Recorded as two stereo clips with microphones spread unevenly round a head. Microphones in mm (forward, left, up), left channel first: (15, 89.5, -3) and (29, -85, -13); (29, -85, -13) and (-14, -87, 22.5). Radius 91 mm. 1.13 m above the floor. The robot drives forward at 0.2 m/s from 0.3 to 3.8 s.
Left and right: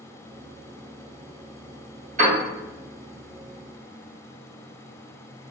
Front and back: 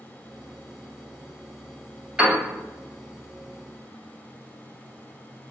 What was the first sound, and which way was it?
A piano, 135° right.